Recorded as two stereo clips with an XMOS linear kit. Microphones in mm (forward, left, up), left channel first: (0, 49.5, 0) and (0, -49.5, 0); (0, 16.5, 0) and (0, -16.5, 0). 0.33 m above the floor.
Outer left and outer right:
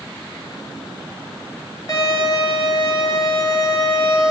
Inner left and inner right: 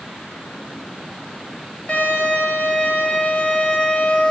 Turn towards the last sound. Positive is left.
turn(degrees=40)  # may be behind; listen again after turning